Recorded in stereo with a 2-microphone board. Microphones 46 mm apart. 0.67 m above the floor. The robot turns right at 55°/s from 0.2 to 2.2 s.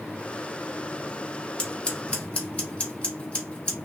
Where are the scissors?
20° left (ahead or behind), 0.9 m; by 3.8 s 25° left (ahead or behind), 0.9 m.